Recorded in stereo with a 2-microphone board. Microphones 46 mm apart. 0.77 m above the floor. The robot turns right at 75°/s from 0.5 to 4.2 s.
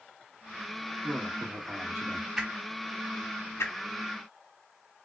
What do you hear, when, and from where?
1.0 s a man speaking: 150° right, 1.6 m; by 2.3 s 60° right, 1.6 m
2.4 s a whoosh: 15° right (ahead or behind), 0.8 m; by 3.7 s 85° left, 0.8 m